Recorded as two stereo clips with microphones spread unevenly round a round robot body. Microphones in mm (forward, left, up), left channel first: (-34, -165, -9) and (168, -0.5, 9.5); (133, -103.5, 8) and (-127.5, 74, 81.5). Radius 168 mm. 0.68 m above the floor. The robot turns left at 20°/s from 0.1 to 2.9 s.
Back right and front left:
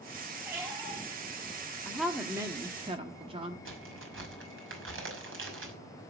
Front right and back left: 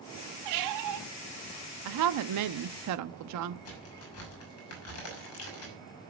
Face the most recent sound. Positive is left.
turn(degrees=5)